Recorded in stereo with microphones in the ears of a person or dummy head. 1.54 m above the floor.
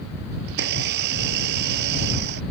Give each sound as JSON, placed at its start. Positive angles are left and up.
{"t": 0.5, "sound": "a blender", "side_deg": -65}